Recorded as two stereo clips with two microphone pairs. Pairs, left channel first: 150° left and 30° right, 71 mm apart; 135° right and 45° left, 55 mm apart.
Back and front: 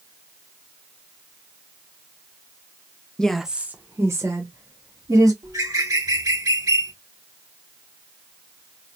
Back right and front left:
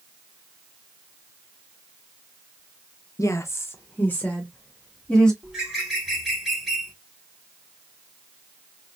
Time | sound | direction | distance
3.2 | a woman speaking | 135° right | 0.6 m
5.4 | a bird | 40° right | 1.7 m